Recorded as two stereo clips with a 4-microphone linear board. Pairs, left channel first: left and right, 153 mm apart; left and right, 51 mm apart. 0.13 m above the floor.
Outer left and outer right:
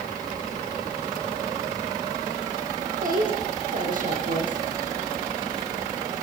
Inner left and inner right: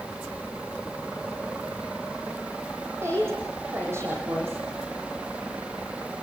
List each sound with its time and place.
3.0 s a woman speaking: 65° right (ahead or behind), 5.5 m